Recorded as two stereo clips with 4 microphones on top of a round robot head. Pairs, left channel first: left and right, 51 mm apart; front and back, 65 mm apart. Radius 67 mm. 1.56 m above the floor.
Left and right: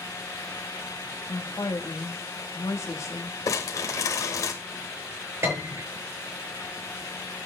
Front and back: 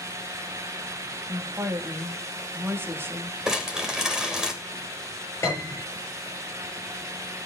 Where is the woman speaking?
125° left, 2.5 m.